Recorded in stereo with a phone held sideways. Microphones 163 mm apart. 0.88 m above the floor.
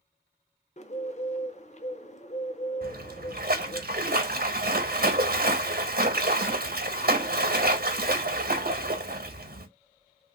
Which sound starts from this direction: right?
A splash, at 2.8 s.